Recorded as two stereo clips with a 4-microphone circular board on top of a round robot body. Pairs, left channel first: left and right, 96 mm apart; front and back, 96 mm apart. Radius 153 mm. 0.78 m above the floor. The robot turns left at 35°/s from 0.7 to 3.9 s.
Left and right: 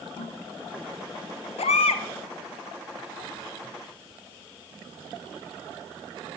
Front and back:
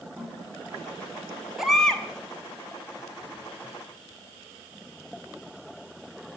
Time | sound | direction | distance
0.2 | a toilet flushing | 90° left | 8 m
1.6 | a baby crying | 95° left | 0.8 m